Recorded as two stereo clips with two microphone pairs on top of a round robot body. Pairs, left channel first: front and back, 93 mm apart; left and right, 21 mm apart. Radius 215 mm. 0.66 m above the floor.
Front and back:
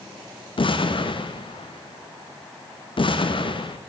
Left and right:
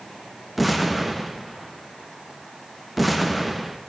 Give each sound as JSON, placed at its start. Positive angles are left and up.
{"t": 0.6, "sound": "an explosion", "azimuth_deg": 5, "distance_m": 1.1}